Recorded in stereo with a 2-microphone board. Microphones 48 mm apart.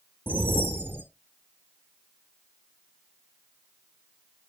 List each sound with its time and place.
0.3 s a whoosh: 40° right (ahead or behind), 1.0 m